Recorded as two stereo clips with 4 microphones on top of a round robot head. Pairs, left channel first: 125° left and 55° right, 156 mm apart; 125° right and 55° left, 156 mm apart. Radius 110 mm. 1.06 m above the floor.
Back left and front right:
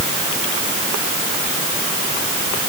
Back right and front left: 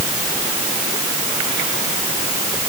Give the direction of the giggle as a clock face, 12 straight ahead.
I don't hear a giggle.